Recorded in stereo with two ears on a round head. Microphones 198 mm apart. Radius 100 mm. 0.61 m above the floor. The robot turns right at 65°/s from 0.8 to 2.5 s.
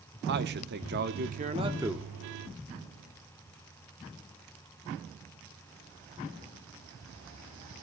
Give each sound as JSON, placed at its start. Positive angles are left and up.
{"t": 0.3, "sound": "a man speaking", "azimuth_deg": -85, "distance_m": 0.9}